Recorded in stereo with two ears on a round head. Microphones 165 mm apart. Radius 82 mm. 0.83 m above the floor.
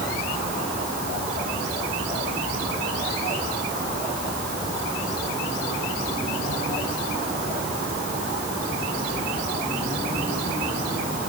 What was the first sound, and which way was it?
Only background noise.